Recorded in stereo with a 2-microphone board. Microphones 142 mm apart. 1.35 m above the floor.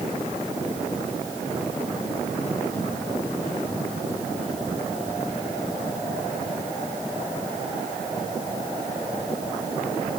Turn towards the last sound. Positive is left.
No sound to turn to.